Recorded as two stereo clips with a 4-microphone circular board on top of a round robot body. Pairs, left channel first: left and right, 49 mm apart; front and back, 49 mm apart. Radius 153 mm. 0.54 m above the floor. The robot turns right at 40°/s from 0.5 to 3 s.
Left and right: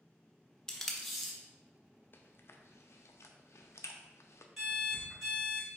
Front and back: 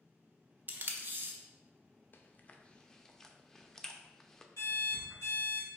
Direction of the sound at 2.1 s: 45° left.